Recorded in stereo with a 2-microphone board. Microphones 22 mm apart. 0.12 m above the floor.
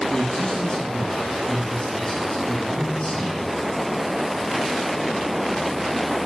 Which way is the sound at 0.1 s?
25° left (ahead or behind).